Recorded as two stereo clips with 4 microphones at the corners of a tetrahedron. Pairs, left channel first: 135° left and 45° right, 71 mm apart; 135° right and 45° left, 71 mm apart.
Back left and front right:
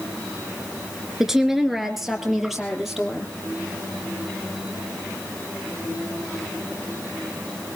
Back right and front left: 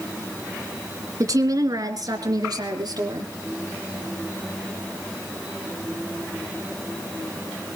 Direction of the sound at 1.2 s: 40° left.